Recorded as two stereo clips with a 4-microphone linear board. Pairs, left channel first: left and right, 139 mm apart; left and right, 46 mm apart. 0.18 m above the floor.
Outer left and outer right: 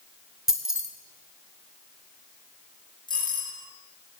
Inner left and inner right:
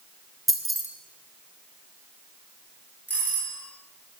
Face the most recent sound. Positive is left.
turn(degrees=35)  # may be behind; listen again after turning